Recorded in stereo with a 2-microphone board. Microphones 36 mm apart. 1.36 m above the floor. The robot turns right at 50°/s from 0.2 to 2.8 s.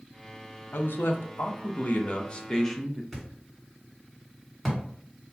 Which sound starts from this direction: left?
A man speaking, at 0.7 s.